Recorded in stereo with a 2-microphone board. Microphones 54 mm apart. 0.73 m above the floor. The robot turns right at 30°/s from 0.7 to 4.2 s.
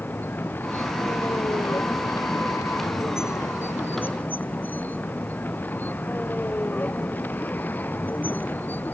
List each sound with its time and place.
0.0 s a vehicle: 40° left; by 8.9 s 145° left